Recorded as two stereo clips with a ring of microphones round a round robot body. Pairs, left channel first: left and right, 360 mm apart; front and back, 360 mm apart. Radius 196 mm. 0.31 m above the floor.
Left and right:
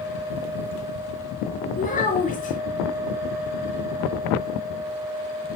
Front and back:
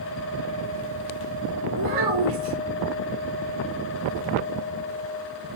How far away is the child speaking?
About 3 m.